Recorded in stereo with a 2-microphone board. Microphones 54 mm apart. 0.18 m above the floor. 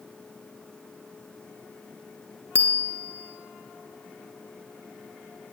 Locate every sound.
2.5 s a bicycle bell: 50° right (ahead or behind), 2 m